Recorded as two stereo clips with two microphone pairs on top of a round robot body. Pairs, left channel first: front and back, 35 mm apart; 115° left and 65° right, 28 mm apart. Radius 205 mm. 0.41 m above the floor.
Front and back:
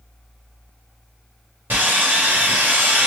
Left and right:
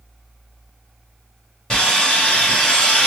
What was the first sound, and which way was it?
Sawing, 175° left.